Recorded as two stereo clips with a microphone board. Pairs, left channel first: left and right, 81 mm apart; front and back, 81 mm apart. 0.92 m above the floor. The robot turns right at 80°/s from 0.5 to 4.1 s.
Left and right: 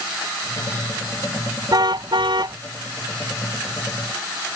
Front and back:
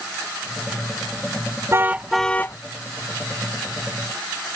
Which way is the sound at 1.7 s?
125° right.